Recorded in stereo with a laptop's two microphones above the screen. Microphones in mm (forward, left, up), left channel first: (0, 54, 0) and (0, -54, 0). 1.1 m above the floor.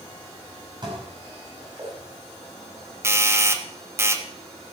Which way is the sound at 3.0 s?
20° right (ahead or behind).